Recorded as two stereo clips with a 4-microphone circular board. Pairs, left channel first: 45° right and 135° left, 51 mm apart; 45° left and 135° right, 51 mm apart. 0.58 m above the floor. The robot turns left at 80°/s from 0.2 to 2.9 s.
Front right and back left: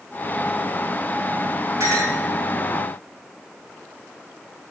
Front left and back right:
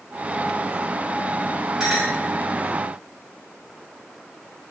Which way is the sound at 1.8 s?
145° left.